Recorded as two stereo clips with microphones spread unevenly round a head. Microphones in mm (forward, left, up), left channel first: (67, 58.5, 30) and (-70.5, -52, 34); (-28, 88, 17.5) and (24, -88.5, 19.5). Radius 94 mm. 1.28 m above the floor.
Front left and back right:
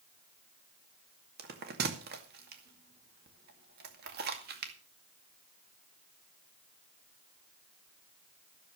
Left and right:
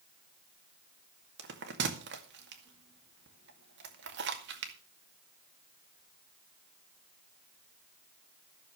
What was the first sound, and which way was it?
A bell, 105° right.